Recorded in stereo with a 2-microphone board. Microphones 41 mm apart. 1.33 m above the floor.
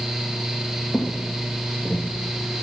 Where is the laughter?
I don't hear laughter.